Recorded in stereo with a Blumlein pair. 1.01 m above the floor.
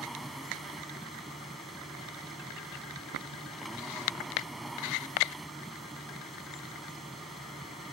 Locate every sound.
0.0 s a machine running: 5° right